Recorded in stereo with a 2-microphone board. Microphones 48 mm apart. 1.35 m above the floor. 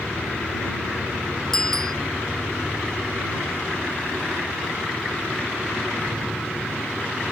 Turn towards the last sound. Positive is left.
turn(degrees=10)  # may be behind; listen again after turning